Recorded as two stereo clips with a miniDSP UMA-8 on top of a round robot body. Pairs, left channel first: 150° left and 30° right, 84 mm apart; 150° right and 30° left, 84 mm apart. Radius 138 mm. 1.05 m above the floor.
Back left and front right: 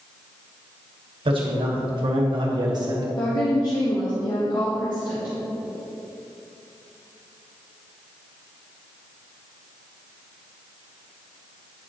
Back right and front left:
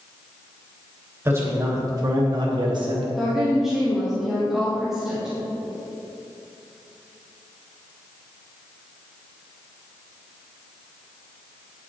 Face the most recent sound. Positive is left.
turn(degrees=115)